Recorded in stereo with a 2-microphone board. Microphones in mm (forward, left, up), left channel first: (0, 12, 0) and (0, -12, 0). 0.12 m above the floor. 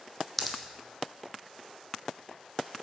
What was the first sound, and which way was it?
A pop, 5° left (ahead or behind).